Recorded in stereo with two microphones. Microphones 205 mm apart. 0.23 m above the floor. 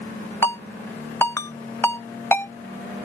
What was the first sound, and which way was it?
A ringtone, 15° left (ahead or behind).